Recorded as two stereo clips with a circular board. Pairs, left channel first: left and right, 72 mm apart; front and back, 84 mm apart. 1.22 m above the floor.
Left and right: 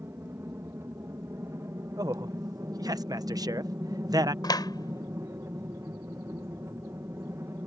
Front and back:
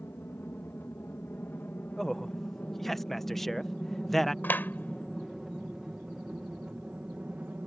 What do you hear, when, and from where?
0.0 s an aircraft: 50° right; by 7.7 s 115° right
2.0 s a man speaking: 85° right
4.4 s a clap: 65° left